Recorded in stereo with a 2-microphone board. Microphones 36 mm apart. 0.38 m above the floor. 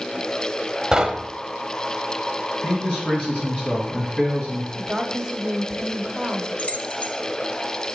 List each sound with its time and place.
0.9 s knocking: 15° right (ahead or behind), 0.8 m
2.6 s a man speaking: 35° left (ahead or behind), 4 m
4.7 s a woman speaking: 20° right (ahead or behind), 1.0 m
6.6 s keys jangling: 40° left (ahead or behind), 0.9 m